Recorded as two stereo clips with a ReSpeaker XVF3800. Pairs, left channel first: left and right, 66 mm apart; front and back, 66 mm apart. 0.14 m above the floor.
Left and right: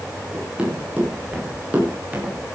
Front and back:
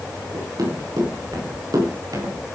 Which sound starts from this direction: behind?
Running footsteps, at 0.3 s.